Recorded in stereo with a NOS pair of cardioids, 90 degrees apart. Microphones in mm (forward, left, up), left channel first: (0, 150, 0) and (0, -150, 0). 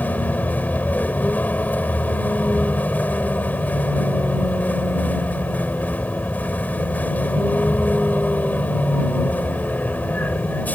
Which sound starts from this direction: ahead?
A vehicle, at 0.0 s.